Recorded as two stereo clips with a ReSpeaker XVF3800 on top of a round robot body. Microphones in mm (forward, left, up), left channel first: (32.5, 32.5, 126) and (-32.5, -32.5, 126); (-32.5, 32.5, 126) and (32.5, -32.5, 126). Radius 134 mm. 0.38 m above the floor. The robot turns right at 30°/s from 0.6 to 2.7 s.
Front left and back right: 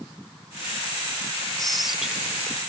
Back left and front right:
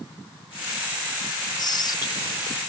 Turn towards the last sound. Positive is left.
turn(degrees=160)